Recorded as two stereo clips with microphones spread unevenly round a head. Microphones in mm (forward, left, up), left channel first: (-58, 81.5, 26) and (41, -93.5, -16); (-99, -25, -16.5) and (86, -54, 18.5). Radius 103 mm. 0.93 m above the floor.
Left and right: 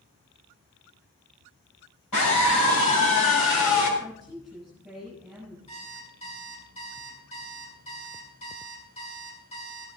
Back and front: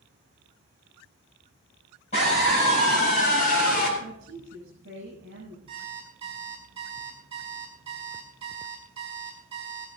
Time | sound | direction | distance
2.1 | a scream | 110° left | 6.5 m
4.0 | a woman speaking | 30° left | 7 m
5.7 | an alarm clock | 60° left | 4.5 m